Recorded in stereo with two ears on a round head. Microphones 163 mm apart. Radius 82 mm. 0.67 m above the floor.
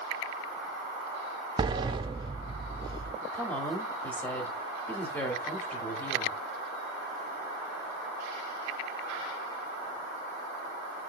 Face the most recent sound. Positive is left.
turn(degrees=10)  # may be behind; listen again after turning